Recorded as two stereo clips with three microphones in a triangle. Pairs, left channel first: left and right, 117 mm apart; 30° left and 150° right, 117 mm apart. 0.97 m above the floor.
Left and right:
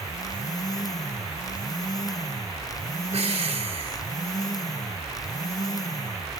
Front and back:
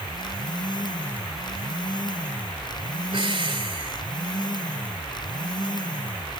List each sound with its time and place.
3.1 s breathing: 105° right, 1.2 m